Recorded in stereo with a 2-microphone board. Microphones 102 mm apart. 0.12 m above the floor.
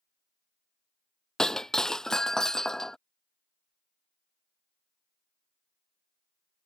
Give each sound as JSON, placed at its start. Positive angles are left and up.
{"t": 1.4, "sound": "breaking glass", "side_deg": 5}